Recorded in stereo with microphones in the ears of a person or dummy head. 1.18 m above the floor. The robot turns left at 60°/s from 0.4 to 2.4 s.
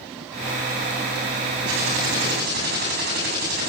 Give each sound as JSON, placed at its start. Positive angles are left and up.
{"t": 1.7, "sound": "typing on a keyboard", "azimuth_deg": -85, "distance_m": 8.5}